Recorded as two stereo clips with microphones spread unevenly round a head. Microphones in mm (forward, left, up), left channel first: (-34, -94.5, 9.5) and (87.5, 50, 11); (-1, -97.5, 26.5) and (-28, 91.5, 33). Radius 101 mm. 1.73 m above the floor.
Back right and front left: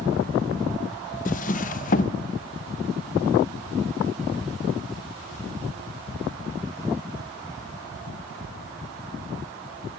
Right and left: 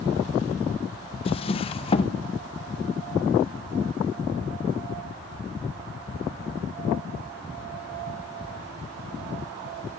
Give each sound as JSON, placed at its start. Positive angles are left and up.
{"t": 1.2, "sound": "a drawer", "azimuth_deg": -130, "distance_m": 0.9}